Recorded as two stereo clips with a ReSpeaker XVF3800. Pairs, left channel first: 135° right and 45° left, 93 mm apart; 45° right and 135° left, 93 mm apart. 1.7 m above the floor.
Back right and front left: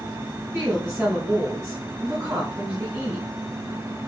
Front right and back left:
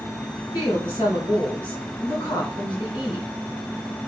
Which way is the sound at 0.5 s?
10° right.